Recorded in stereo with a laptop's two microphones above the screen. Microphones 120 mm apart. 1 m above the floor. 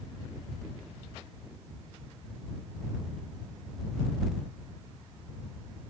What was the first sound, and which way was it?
Only background noise.